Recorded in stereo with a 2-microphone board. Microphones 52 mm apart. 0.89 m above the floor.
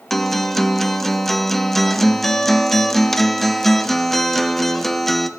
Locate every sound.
0.1 s a guitar: 5° left (ahead or behind), 0.5 m